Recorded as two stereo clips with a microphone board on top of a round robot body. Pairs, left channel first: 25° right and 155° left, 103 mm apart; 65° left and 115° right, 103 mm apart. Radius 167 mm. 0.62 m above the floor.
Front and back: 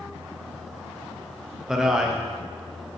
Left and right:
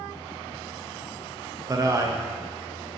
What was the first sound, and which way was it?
A man speaking, 120° right.